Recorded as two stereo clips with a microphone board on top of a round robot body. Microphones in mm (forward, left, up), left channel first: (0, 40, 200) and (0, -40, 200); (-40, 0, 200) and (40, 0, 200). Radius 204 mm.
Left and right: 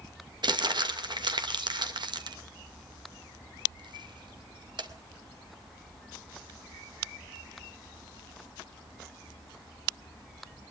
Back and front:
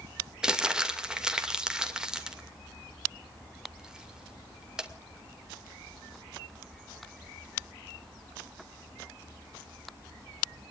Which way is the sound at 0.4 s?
80° right.